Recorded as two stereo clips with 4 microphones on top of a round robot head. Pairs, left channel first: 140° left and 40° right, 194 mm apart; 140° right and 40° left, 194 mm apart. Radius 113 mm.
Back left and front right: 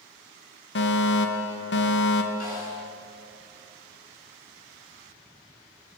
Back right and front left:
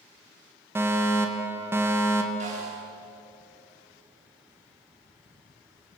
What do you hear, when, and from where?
0.8 s a fire alarm: 115° left, 3 m
2.4 s a snare drum: 95° left, 9.5 m